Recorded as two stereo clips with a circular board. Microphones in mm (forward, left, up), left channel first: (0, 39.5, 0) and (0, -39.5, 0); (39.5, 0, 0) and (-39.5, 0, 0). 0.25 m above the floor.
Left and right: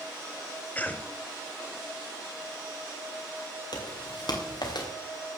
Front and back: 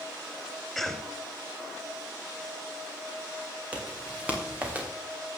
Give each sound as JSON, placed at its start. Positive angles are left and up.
{"t": 0.8, "sound": "a cough", "azimuth_deg": 80, "distance_m": 1.0}
{"t": 3.7, "sound": "footsteps", "azimuth_deg": 110, "distance_m": 4.5}